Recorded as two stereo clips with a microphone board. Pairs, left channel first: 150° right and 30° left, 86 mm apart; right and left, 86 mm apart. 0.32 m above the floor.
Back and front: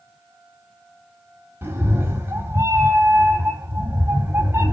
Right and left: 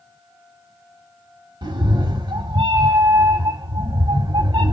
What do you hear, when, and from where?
1.6 s a cat meowing: 90° left, 0.9 m